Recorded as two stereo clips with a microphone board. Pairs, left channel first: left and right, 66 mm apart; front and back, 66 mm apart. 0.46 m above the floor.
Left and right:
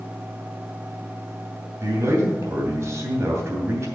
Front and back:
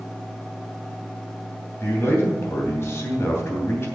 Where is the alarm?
I don't hear an alarm.